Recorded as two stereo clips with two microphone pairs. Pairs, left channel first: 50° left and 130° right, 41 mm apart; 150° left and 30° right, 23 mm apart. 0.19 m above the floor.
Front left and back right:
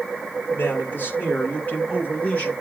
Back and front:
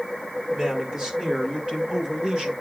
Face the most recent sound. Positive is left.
turn(degrees=0)